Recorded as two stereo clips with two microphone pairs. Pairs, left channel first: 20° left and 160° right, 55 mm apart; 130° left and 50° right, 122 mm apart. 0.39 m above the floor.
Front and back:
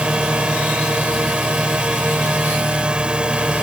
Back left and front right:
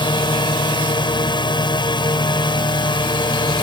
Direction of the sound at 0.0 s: 140° left.